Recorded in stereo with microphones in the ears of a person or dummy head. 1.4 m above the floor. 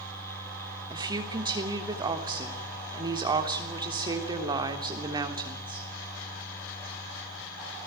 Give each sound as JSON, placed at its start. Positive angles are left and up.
{"t": 0.9, "sound": "a woman speaking", "side_deg": -25, "distance_m": 3.5}